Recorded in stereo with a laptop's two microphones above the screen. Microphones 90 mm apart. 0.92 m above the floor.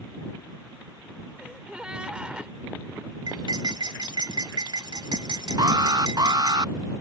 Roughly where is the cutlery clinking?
Right.